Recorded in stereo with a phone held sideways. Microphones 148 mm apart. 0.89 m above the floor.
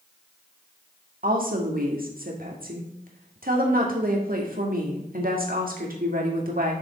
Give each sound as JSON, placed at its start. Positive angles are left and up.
{"t": 1.2, "sound": "a woman speaking", "side_deg": -75, "distance_m": 1.7}